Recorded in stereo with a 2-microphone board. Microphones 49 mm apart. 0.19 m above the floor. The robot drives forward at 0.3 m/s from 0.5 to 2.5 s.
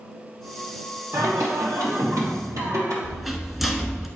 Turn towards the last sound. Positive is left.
turn(degrees=-5)  # may be behind; listen again after turning